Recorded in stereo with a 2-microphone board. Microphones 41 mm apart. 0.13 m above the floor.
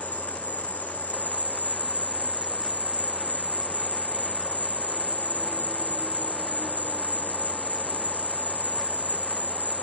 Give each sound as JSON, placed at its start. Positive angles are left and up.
{"t": 0.0, "sound": "an insect", "side_deg": -35, "distance_m": 1.1}